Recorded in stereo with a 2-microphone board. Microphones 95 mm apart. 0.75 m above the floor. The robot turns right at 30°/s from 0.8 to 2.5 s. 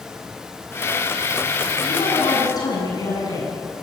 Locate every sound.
1.9 s a woman speaking: 65° left (ahead or behind), 8 m; by 3.7 s 45° left (ahead or behind), 8 m